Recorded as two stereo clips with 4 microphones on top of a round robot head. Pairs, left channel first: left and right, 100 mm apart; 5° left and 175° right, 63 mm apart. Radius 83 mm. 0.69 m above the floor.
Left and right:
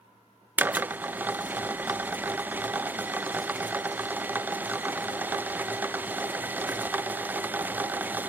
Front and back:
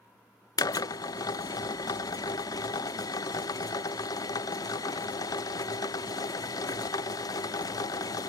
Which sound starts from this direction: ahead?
A drill, at 0.6 s.